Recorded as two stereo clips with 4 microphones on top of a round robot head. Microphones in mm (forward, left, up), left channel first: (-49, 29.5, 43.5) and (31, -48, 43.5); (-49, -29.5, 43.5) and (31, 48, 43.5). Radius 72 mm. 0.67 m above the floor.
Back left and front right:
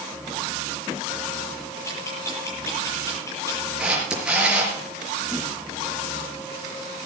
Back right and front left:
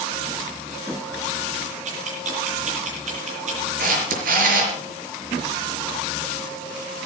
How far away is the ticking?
About 9.5 m.